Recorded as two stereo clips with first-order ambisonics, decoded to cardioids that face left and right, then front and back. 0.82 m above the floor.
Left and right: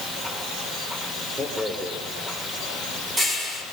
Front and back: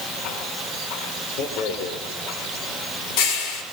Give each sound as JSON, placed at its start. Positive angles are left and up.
{"t": 1.4, "sound": "a rattle", "azimuth_deg": -20, "distance_m": 6.5}